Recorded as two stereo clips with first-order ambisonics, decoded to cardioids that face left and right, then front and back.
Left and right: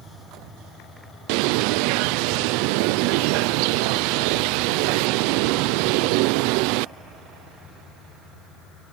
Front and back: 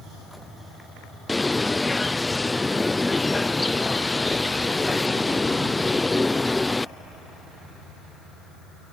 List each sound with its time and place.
1.3 s a bird: 85° right